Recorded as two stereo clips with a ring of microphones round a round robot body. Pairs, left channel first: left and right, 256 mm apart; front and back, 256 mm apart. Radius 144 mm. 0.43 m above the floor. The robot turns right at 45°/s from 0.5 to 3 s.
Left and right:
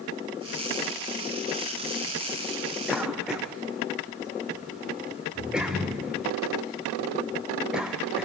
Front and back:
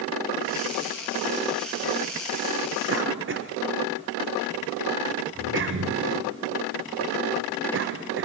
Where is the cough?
Straight behind, 1.1 m; by 8.2 s 175° right, 1.1 m.